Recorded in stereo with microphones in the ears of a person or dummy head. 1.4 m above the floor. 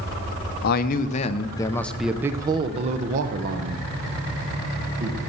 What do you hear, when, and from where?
0.6 s a man speaking: 50° left (ahead or behind), 0.9 m; by 5.2 s 65° right (ahead or behind), 1.8 m